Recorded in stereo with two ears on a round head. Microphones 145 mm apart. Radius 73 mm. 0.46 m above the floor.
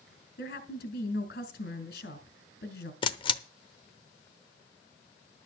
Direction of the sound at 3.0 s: 30° left (ahead or behind).